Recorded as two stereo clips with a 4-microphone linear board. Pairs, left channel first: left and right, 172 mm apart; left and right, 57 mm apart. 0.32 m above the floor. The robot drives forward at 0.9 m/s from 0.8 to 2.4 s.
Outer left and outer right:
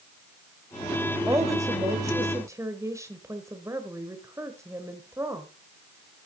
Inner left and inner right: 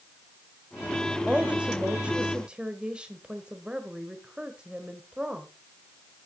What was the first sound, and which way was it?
A woman speaking, 15° right (ahead or behind).